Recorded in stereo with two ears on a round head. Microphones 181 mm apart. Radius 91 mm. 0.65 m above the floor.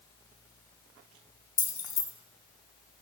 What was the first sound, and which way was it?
Keys jangling, 20° left (ahead or behind).